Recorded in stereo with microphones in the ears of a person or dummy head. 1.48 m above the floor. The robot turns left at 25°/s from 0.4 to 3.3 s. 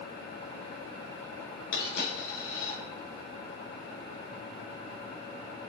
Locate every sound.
1.7 s a dropped coin: 70° left (ahead or behind), 3.5 m; by 2.8 s 50° left (ahead or behind), 3.5 m